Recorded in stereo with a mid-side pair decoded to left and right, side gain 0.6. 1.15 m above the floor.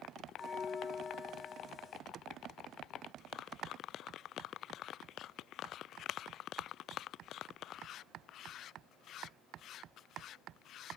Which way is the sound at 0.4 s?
20° left.